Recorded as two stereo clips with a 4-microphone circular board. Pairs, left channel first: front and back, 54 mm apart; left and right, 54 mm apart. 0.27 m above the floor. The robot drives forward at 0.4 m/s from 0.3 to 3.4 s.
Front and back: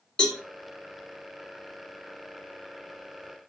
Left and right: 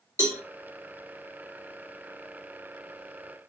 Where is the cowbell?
70° right, 2 m; by 0.4 s 75° right, 2 m.